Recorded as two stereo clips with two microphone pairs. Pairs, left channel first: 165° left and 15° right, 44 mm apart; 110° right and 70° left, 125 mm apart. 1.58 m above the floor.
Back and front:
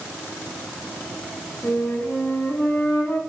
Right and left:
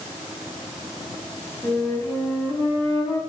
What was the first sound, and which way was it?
A flute, 170° right.